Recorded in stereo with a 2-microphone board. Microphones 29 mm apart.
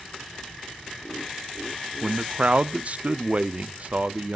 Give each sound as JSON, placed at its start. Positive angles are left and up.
{"t": 2.0, "sound": "a man speaking", "side_deg": -45, "distance_m": 0.6}